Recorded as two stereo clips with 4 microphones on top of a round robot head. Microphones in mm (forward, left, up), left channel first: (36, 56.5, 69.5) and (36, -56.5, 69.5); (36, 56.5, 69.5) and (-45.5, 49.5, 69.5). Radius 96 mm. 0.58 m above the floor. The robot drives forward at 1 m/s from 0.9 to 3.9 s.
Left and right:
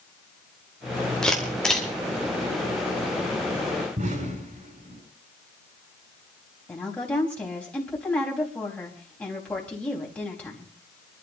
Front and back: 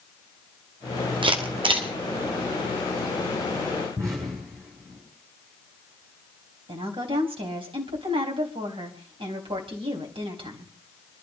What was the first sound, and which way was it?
A camera shutter, 175° left.